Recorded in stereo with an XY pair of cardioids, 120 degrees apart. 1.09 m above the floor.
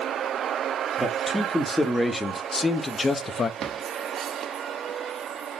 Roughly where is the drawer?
Ahead right.